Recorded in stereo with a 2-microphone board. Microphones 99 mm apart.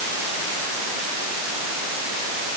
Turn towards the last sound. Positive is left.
No sound to turn to.